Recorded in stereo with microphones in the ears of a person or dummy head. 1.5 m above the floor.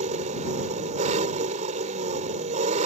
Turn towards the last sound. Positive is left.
turn(degrees=-40)  # may be behind; listen again after turning